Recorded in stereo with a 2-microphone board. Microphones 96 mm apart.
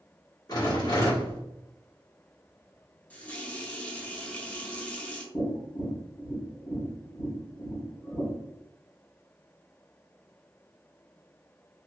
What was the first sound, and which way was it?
A rattle, 40° left (ahead or behind).